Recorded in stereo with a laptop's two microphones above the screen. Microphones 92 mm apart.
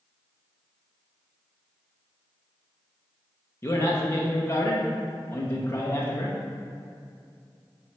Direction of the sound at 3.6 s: 25° left (ahead or behind).